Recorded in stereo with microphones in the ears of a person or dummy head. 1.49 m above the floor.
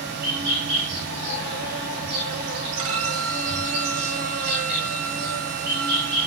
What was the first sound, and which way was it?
An insect, 55° right (ahead or behind).